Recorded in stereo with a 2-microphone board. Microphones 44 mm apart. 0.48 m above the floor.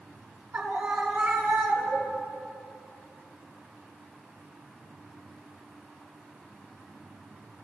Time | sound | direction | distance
0.5 | a scream | 65° right (ahead or behind) | 5.5 m